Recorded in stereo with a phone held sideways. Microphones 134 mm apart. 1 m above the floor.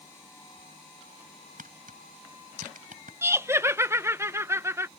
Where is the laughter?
20° right (ahead or behind).